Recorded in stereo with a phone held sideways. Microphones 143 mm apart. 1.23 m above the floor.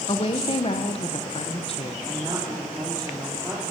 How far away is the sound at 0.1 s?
About 1.2 m.